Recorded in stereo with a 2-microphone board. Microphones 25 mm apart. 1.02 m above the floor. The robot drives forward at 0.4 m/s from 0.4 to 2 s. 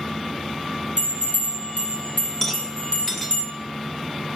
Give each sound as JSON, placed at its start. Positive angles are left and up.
{"t": 1.0, "sound": "a bell", "side_deg": 85, "distance_m": 4.5}
{"t": 2.4, "sound": "a rattle", "side_deg": 15, "distance_m": 2.0}